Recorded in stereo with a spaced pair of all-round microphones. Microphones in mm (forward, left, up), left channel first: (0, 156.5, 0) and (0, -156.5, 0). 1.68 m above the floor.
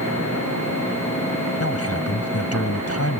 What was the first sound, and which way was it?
A man speaking, 45° left (ahead or behind).